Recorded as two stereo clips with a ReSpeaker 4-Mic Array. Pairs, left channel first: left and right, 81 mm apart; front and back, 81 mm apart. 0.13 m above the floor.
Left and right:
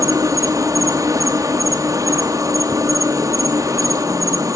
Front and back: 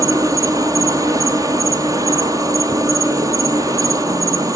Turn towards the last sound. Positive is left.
turn(degrees=-135)